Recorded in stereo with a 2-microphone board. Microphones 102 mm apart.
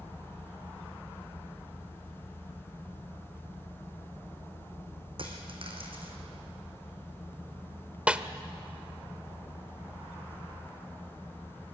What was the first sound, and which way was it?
A dropped coin, 60° right (ahead or behind).